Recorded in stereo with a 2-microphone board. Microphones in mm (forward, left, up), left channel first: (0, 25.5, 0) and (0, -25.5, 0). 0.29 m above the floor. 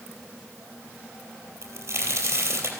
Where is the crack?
55° right (ahead or behind), 3.5 m.